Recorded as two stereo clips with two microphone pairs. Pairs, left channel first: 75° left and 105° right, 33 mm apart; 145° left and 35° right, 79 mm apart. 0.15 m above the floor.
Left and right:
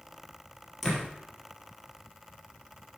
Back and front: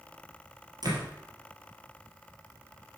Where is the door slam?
10° right, 3 m.